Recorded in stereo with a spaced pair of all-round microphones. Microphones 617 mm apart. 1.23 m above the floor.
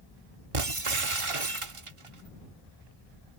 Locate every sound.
0.5 s breaking glass: 55° right (ahead or behind)